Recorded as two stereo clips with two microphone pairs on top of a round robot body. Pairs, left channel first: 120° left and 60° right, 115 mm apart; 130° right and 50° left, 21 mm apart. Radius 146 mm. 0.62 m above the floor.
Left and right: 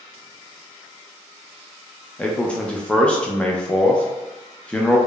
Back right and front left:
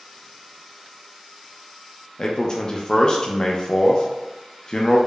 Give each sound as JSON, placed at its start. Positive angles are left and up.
{"t": 2.2, "sound": "a man speaking", "azimuth_deg": -175, "distance_m": 0.5}